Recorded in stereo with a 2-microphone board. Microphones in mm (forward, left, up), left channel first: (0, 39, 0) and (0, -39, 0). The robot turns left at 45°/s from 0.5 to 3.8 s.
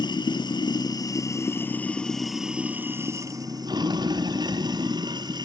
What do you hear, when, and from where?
0.0 s running water: 80° left, 1.2 m; by 5.5 s 70° right, 1.2 m